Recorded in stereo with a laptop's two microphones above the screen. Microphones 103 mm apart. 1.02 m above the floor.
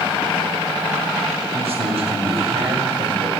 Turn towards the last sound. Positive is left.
turn(degrees=-70)  # may be behind; listen again after turning